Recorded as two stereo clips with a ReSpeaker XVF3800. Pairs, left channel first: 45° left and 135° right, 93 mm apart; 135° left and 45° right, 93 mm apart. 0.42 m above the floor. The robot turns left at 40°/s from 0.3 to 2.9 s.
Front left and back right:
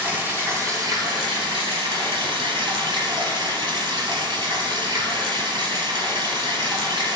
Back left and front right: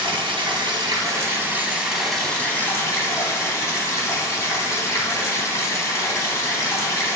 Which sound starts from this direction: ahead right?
Running water, at 0.0 s.